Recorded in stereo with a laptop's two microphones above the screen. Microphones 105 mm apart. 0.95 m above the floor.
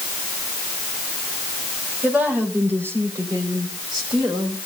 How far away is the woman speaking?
About 4 m.